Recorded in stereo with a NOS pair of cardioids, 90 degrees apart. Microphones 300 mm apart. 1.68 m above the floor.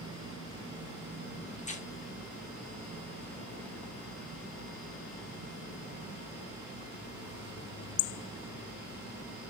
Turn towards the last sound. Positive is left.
turn(degrees=25)